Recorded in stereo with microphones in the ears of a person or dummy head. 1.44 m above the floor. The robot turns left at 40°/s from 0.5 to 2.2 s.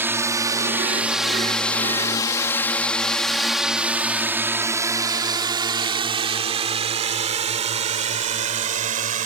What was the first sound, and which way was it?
A drone, 10° right (ahead or behind).